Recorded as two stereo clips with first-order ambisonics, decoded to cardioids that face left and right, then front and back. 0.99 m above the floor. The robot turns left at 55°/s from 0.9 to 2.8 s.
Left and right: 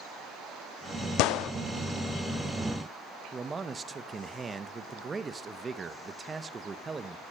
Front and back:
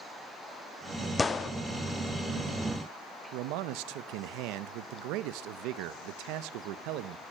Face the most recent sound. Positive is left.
turn(degrees=-160)